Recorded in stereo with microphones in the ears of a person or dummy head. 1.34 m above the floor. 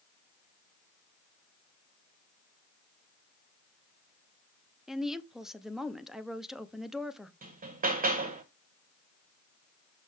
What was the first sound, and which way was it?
A woman speaking, centre (ahead or behind).